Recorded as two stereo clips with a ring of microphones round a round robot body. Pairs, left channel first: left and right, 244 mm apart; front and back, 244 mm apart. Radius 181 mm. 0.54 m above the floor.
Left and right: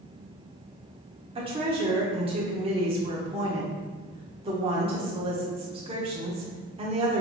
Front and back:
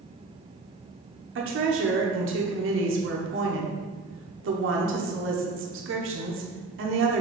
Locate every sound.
1.4 s a woman speaking: 155° right, 1.0 m